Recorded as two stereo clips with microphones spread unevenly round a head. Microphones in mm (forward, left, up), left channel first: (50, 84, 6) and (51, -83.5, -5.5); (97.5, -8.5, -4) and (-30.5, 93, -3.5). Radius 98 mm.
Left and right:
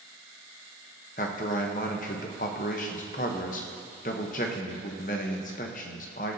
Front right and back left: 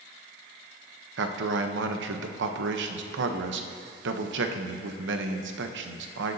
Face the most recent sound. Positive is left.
turn(degrees=145)